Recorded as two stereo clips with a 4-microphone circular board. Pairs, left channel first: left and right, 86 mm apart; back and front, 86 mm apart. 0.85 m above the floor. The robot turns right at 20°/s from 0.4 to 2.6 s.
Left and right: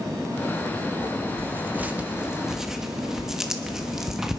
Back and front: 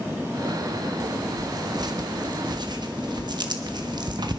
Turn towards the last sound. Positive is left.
turn(degrees=-5)